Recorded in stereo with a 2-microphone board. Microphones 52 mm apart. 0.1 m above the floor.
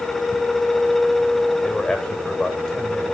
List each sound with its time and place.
1.6 s a man speaking: 15° left (ahead or behind), 9.5 m